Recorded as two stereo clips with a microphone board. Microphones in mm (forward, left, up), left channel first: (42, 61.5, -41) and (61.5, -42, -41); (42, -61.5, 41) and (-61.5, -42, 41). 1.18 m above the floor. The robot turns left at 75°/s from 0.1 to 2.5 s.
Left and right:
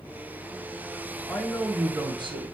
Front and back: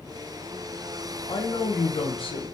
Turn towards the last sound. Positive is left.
turn(degrees=-60)